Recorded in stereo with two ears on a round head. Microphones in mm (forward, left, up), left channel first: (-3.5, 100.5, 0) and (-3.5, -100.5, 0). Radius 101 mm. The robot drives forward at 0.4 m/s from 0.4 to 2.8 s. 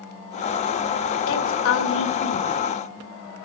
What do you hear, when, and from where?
1.3 s a woman speaking: 60° left (ahead or behind), 3 m; by 2.5 s 55° left (ahead or behind), 3 m